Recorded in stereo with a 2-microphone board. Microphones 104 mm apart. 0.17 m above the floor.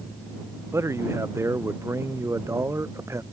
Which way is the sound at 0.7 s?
25° right (ahead or behind).